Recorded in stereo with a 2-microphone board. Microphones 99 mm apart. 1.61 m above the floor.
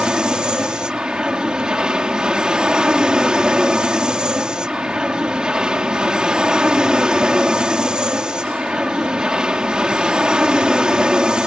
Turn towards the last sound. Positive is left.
turn(degrees=-10)  # may be behind; listen again after turning